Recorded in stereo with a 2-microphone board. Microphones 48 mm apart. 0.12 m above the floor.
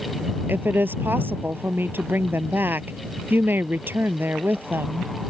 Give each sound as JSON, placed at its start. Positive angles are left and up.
{"t": 0.5, "sound": "a woman speaking", "side_deg": -40}